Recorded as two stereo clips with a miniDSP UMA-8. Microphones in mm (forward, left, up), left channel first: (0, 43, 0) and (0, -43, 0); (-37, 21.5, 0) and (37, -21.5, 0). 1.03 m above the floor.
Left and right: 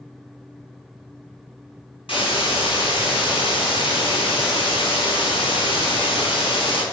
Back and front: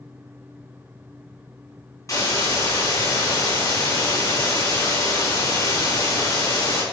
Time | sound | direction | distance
2.1 | a hiss | 95° left | 5.5 m